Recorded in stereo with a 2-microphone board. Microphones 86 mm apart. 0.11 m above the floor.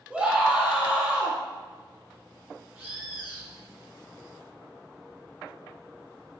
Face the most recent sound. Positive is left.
turn(degrees=-30)  # may be behind; listen again after turning